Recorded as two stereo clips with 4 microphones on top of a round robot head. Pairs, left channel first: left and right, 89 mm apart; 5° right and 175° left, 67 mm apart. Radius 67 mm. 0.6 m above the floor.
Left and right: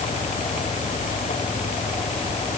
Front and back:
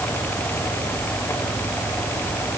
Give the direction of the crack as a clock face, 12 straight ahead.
No crack in this recording.